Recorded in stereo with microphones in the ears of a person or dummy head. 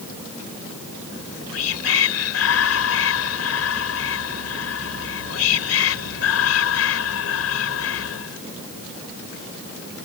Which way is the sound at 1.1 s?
80° left.